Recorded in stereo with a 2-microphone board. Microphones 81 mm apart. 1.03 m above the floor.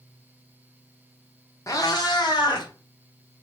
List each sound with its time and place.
1.7 s a cat meowing: 40° left (ahead or behind), 0.9 m; by 2.7 s 65° left (ahead or behind), 2 m